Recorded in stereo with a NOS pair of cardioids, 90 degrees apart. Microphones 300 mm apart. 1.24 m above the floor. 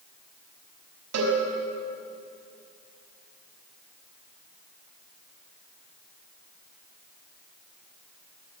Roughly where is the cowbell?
Ahead right.